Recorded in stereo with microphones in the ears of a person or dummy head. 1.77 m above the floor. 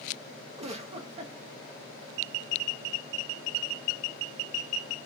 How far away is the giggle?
About 1.0 m.